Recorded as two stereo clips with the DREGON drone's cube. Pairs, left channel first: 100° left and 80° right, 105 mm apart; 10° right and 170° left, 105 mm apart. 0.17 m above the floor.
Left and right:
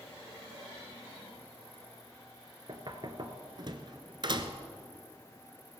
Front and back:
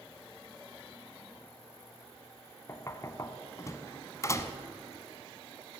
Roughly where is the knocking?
Ahead right.